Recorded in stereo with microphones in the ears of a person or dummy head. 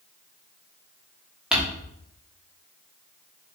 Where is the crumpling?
5° right (ahead or behind), 1.0 m.